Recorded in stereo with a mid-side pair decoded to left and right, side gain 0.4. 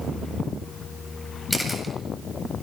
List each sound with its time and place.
1.5 s a camera shutter: straight ahead, 8 m